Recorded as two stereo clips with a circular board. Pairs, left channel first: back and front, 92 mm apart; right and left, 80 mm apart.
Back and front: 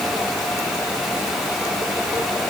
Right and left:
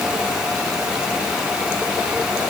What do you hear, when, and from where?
Only background noise.